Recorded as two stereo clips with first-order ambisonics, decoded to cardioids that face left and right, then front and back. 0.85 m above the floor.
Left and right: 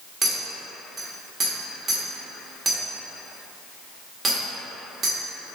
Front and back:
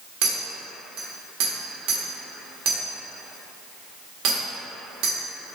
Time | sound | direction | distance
0.2 | a clink | 165° right | 1.1 m